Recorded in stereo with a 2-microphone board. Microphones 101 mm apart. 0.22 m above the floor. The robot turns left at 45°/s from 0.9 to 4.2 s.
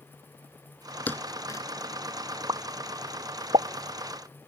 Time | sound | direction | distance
1.1 | a thud | 15° left (ahead or behind) | ?
2.5 | a pop | 45° right (ahead or behind) | ?